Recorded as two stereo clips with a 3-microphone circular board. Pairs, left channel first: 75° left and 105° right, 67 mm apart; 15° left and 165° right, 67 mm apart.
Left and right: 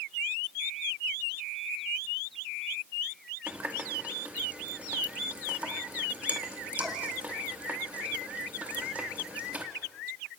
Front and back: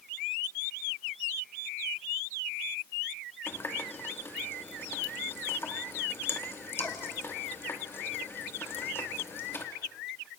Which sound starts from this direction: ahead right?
A running tap, at 3.5 s.